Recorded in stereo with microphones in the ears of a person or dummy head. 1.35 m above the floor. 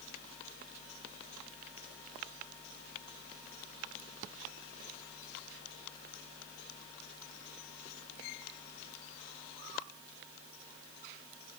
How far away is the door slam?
No door slam in this recording.